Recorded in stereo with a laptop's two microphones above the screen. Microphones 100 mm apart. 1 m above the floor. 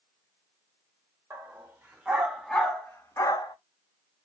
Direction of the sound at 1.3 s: 25° right (ahead or behind).